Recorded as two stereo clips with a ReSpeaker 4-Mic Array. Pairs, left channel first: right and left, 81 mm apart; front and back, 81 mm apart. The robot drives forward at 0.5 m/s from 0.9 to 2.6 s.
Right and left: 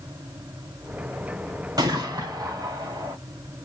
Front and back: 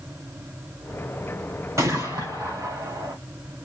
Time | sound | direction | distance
1.8 | a gunshot | 125° left | 3.5 m